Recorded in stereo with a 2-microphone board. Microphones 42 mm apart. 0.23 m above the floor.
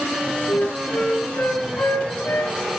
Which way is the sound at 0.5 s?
65° left (ahead or behind).